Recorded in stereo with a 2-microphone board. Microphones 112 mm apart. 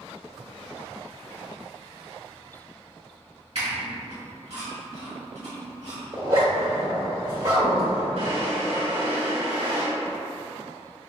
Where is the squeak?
65° right (ahead or behind), 1.7 m.